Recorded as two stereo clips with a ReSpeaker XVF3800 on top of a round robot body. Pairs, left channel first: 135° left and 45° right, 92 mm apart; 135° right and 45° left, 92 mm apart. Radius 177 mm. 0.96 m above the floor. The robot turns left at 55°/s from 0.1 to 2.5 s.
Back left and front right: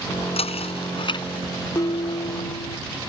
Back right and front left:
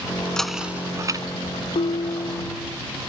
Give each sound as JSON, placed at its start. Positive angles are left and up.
{"t": 0.4, "sound": "knocking", "azimuth_deg": 140}
{"t": 1.8, "sound": "dishes clattering", "azimuth_deg": -165}